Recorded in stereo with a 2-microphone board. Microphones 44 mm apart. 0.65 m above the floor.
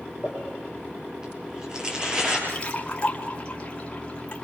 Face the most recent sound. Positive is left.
turn(degrees=25)  # may be behind; listen again after turning